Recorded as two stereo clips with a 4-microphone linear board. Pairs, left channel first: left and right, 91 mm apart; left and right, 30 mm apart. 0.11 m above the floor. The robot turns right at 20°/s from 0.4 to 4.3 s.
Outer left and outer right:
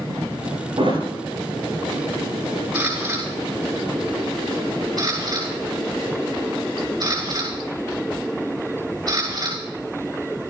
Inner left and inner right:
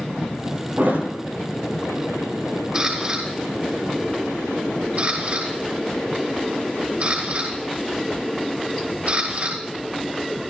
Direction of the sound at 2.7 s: 25° right (ahead or behind).